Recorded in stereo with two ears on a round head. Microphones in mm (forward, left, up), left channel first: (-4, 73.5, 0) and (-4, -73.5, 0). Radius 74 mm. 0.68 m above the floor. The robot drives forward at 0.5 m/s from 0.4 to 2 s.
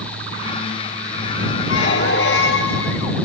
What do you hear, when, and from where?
1.7 s a squeak: 75° left (ahead or behind), 3 m